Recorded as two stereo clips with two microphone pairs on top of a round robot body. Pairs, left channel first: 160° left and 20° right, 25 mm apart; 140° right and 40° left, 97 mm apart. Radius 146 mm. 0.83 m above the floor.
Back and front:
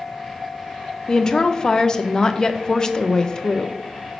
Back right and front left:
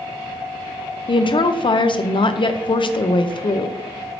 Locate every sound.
1.1 s a woman speaking: 130° right, 0.6 m